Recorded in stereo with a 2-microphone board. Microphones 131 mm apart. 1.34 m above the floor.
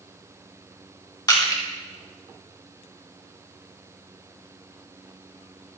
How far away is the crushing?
About 2 m.